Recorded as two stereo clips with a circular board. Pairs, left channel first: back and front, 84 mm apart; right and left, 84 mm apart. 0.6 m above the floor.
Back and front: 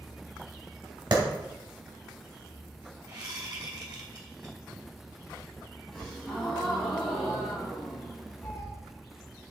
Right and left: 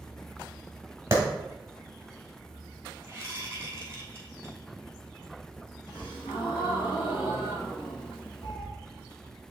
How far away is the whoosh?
About 2.5 m.